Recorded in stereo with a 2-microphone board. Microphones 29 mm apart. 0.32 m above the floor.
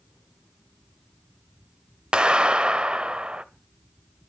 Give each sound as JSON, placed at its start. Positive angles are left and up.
{"t": 2.1, "sound": "a clap", "side_deg": -35, "distance_m": 0.9}